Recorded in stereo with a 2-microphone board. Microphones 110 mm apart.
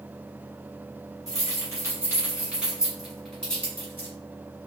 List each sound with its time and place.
1.3 s keys jangling: 35° right (ahead or behind), 1.7 m; by 4.1 s 20° left (ahead or behind), 1.7 m